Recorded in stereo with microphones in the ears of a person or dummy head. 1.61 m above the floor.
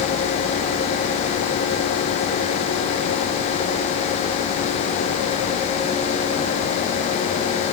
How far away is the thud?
I don't hear a thud.